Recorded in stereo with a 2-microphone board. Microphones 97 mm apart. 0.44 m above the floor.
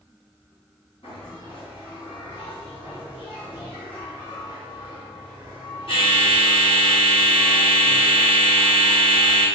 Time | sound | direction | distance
1.0 | a bell | 70° left (ahead or behind) | 1.8 m